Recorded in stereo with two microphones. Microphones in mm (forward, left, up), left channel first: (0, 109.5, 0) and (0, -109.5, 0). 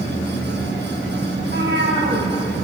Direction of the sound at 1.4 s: 55° right (ahead or behind).